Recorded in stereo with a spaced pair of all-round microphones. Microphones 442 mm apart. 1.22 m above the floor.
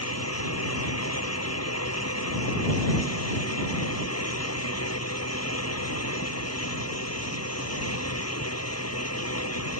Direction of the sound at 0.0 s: 35° left (ahead or behind).